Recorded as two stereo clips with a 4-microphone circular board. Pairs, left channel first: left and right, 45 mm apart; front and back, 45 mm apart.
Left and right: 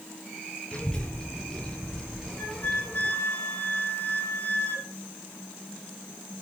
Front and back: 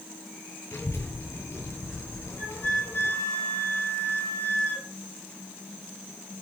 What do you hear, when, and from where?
0.7 s a child speaking: 20° left, 8.5 m; by 3.1 s 5° left, 7.5 m
2.4 s a flute: 45° left, 9.5 m